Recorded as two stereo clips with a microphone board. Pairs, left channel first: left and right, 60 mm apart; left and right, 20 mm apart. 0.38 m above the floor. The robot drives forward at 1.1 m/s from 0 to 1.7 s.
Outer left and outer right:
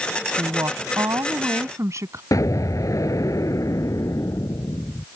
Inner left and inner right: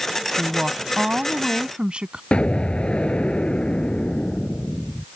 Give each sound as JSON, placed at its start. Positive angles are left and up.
{"t": 0.4, "sound": "a woman speaking", "side_deg": -70}
{"t": 2.3, "sound": "an explosion", "side_deg": 70}